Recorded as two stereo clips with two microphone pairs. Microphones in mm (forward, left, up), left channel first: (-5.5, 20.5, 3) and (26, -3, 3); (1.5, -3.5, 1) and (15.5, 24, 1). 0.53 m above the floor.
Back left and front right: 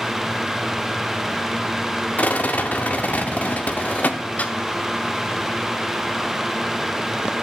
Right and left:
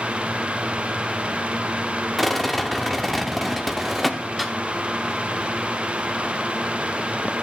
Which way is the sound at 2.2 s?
155° left.